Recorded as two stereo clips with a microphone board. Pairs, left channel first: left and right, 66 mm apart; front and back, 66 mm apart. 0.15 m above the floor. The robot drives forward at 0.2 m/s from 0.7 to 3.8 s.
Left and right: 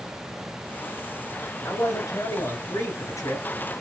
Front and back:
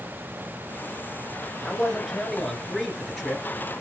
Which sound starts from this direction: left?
A man speaking, at 1.6 s.